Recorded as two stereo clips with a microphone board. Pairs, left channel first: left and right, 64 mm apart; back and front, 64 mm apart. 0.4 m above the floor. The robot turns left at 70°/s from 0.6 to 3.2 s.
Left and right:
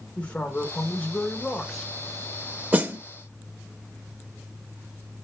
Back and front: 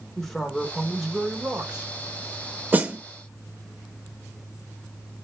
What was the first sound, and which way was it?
A man speaking, 110° left.